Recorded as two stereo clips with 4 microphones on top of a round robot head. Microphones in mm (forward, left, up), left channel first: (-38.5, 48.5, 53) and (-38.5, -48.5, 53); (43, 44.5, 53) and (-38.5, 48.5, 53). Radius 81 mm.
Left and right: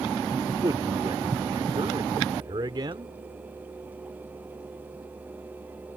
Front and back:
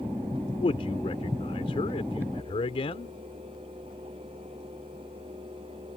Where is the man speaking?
30° right.